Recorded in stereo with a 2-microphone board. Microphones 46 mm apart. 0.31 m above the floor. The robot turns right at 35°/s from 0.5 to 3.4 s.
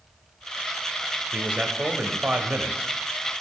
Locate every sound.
1.3 s a man speaking: 115° right, 1.1 m; by 2.9 s 60° right, 1.1 m